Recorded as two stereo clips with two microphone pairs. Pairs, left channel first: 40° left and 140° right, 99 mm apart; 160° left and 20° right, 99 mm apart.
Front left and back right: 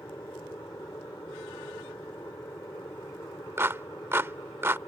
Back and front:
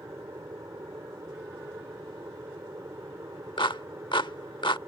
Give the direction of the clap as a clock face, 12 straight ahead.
7 o'clock.